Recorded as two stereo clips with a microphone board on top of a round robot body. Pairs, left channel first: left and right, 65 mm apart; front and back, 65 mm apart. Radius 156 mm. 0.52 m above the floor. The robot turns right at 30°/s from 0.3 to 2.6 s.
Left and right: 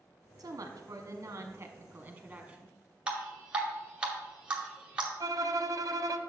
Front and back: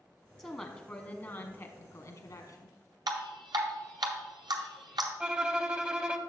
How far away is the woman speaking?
About 1.1 m.